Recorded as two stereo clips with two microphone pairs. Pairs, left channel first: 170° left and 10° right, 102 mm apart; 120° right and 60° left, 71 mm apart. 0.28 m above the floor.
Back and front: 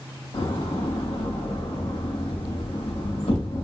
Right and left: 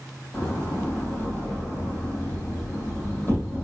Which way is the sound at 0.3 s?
175° left.